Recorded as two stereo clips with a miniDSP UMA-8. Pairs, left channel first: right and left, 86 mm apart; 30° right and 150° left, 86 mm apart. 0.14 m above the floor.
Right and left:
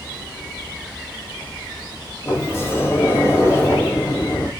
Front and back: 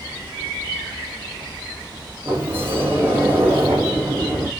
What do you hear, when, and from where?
2.2 s a sliding door: 145° right, 5 m